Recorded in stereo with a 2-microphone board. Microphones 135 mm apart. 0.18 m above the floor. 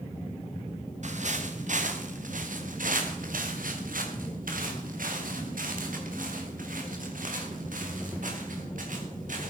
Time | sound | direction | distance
1.0 | footsteps | 60° right (ahead or behind) | 4 m